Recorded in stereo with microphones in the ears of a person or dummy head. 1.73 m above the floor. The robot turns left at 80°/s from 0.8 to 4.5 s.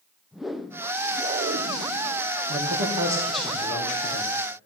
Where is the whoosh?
Straight ahead, 0.7 m; by 2.3 s 120° right, 0.7 m.